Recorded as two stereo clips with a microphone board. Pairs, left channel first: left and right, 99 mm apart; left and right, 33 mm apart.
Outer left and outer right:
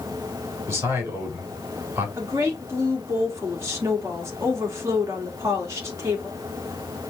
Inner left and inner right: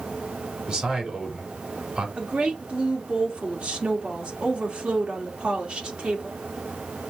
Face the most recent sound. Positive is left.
turn(degrees=-30)  # may be behind; listen again after turning